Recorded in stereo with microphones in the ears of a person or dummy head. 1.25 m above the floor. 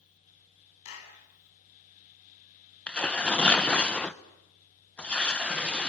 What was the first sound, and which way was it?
A clap, 75° left (ahead or behind).